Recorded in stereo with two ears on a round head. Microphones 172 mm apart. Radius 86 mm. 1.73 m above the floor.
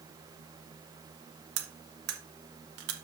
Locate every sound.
1.6 s cutlery clinking: 60° right (ahead or behind), 1.6 m